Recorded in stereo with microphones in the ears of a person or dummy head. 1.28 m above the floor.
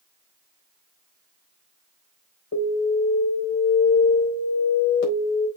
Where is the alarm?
70° left (ahead or behind), 4 m.